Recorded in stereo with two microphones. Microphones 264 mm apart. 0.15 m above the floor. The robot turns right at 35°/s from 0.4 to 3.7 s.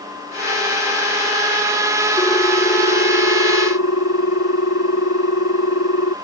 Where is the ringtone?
15° left; by 6.2 s 70° left.